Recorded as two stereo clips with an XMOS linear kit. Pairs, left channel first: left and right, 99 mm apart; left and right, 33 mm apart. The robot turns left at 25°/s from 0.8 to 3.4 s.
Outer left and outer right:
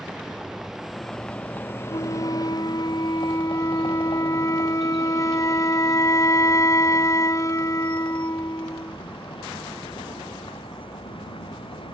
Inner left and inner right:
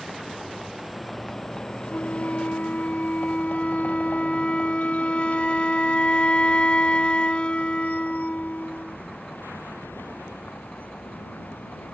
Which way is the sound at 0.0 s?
Straight behind.